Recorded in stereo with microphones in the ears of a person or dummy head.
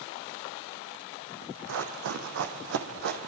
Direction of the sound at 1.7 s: 65° right (ahead or behind).